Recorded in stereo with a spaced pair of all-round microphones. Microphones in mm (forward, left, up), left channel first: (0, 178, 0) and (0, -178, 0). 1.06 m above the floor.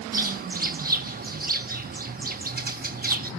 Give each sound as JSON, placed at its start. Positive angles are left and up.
{"t": 0.1, "sound": "a bird", "side_deg": -25, "distance_m": 0.9}